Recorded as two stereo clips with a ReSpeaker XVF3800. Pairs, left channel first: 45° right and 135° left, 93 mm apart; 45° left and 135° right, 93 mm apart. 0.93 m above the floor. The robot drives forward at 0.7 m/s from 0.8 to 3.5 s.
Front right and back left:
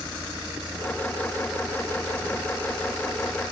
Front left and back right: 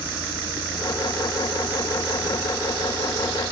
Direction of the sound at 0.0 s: 50° left.